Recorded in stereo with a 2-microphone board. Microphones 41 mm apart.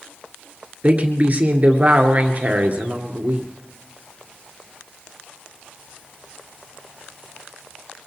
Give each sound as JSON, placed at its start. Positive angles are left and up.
{"t": 0.8, "sound": "a woman speaking", "side_deg": -35, "distance_m": 2.0}